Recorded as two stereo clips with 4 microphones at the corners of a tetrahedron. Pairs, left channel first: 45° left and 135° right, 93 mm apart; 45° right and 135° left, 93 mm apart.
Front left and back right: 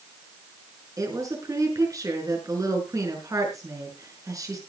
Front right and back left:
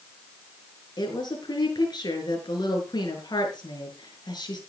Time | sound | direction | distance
1.0 | a woman speaking | 85° right | 6 m